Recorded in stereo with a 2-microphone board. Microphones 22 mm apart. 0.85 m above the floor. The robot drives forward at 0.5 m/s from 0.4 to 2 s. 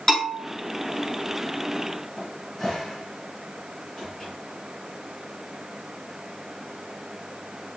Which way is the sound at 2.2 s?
20° left (ahead or behind).